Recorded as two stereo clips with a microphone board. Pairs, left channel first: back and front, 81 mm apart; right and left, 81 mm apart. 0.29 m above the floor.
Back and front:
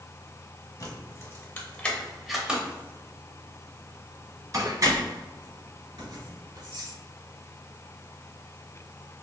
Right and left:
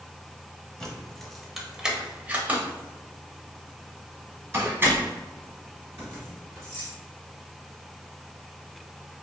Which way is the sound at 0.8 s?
165° right.